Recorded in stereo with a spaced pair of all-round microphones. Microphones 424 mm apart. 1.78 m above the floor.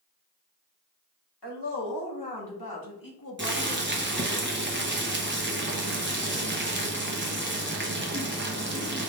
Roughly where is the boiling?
Right.